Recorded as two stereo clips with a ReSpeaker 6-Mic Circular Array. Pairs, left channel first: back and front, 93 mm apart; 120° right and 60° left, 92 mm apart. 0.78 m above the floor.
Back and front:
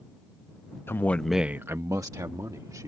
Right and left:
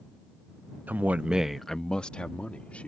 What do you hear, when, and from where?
0.9 s a man speaking: 125° left; by 2.9 s 45° right